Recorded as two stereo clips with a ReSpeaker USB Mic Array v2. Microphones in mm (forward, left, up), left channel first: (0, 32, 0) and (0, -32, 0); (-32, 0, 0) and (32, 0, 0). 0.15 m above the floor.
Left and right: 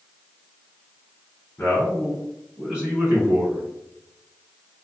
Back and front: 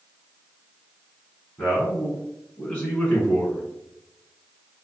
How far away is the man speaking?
About 1.5 m.